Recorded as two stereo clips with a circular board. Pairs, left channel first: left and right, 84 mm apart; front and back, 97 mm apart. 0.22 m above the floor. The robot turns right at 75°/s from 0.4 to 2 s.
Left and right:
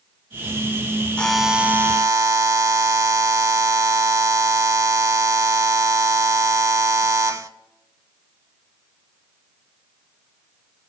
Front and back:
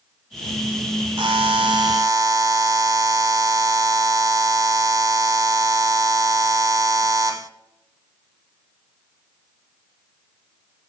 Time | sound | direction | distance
1.2 | a buzzer | 160° left | 0.5 m